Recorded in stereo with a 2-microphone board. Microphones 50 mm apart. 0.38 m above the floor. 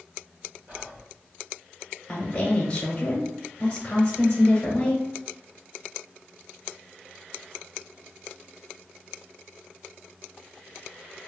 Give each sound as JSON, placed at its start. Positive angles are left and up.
{"t": 0.7, "sound": "whispering", "side_deg": -35, "distance_m": 1.3}
{"t": 2.1, "sound": "a woman speaking", "side_deg": 25, "distance_m": 0.9}